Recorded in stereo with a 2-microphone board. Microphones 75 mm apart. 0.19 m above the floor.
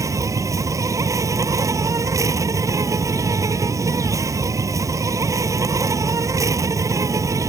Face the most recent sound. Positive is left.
turn(degrees=-45)  # may be behind; listen again after turning